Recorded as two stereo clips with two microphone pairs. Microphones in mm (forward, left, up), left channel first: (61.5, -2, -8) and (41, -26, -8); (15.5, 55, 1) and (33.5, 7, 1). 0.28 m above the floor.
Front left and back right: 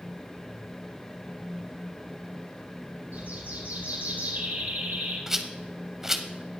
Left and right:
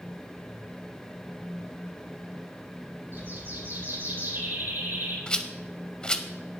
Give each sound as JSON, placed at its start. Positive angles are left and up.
{"t": 3.1, "sound": "a bird", "azimuth_deg": -115, "distance_m": 5.0}
{"t": 5.3, "sound": "a rattle", "azimuth_deg": 160, "distance_m": 0.8}